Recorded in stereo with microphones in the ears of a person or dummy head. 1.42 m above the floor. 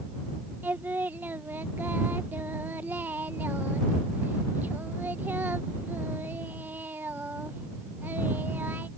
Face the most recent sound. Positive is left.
turn(degrees=-10)  # may be behind; listen again after turning